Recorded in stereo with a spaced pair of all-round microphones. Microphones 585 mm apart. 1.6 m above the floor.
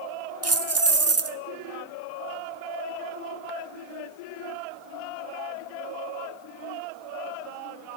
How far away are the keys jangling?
About 0.5 m.